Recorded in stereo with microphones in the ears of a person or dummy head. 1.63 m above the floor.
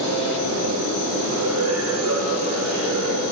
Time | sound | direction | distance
0.0 | a machine running | 80° right | 3.5 m